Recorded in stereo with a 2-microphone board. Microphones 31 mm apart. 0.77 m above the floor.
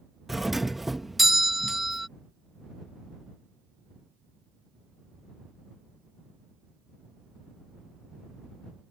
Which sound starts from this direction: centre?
A doorbell, at 0.3 s.